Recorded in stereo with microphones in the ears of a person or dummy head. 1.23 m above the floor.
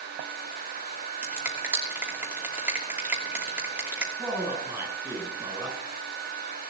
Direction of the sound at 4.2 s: 10° right (ahead or behind).